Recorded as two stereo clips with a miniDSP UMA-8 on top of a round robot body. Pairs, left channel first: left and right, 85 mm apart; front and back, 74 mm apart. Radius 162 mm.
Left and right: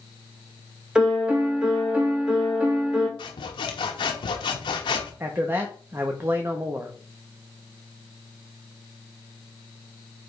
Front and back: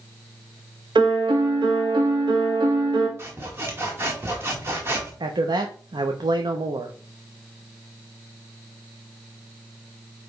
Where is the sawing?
120° left, 0.9 m.